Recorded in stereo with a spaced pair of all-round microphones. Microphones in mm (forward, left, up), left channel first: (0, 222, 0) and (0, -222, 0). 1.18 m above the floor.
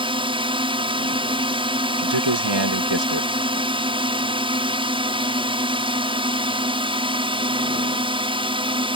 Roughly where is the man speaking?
Right.